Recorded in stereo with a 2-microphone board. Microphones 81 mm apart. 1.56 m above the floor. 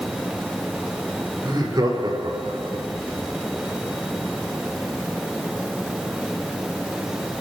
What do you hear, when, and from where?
1.4 s laughter: 50° right (ahead or behind), 4.5 m; by 2.9 s 70° right (ahead or behind), 3 m